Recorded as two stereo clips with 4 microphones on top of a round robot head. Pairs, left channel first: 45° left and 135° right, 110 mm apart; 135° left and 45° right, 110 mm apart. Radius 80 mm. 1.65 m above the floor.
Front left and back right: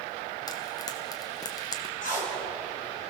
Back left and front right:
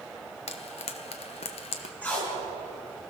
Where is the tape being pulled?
60° left, 6 m.